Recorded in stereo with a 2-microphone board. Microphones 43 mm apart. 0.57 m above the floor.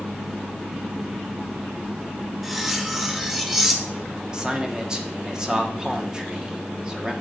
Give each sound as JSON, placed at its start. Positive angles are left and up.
{"t": 2.4, "sound": "cutlery clinking", "side_deg": -10, "distance_m": 0.8}
{"t": 4.3, "sound": "a man speaking", "side_deg": -20, "distance_m": 0.9}